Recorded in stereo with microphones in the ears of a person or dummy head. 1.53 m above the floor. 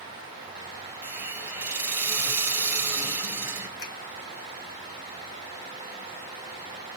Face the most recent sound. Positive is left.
turn(degrees=65)  # may be behind; listen again after turning